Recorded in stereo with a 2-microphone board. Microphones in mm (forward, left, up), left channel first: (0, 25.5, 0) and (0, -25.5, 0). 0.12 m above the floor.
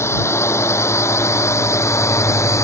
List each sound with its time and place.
0.0 s a drone: 55° left (ahead or behind); by 2.6 s 65° left (ahead or behind)